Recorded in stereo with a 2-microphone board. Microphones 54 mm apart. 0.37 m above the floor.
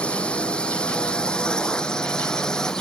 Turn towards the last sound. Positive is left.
turn(degrees=10)  # may be behind; listen again after turning